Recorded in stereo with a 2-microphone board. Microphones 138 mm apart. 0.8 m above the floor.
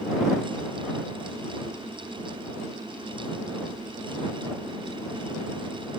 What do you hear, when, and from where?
Only background noise.